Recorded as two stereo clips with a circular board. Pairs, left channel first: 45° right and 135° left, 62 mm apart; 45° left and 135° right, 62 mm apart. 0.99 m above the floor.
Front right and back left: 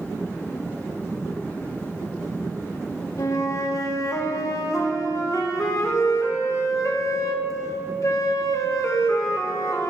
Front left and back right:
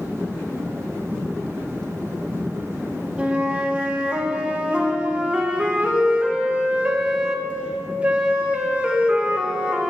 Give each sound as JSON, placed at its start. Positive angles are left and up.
{"t": 3.2, "sound": "a flute", "azimuth_deg": -65, "distance_m": 0.7}